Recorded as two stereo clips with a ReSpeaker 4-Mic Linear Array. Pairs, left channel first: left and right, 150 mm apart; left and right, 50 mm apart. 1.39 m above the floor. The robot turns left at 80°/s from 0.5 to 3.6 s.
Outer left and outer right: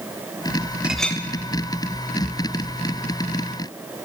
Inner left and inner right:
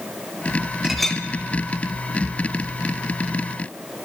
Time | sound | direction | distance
0.8 | a clink | 10° right (ahead or behind) | 0.5 m